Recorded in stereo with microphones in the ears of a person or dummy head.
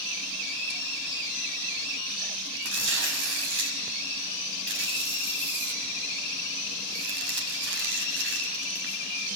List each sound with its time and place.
2.6 s tearing paper: 70° right (ahead or behind), 6 m